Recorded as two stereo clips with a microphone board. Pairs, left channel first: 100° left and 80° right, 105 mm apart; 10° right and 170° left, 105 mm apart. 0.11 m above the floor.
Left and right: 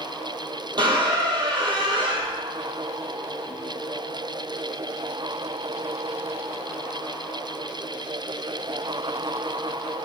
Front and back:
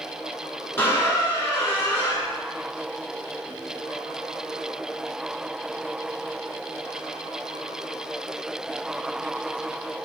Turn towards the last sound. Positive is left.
turn(degrees=-70)